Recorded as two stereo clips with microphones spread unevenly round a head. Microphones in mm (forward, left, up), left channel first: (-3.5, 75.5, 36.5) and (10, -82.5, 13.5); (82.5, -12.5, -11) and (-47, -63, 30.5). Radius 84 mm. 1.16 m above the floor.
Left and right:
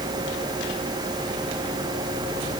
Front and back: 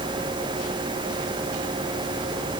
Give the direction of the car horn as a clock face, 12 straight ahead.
No car horn in this recording.